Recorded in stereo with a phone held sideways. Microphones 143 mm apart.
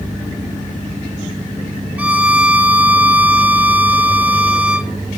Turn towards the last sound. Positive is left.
turn(degrees=-10)  # may be behind; listen again after turning